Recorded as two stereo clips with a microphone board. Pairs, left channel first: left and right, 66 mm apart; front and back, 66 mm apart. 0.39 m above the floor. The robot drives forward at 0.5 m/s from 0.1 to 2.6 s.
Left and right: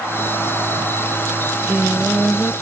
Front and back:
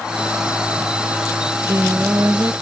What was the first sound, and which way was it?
Singing, 135° right.